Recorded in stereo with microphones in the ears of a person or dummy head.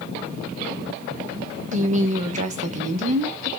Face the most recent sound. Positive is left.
turn(degrees=-40)  # may be behind; listen again after turning